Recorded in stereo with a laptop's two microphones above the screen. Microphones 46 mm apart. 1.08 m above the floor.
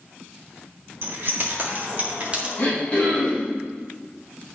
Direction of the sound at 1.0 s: 50° right (ahead or behind).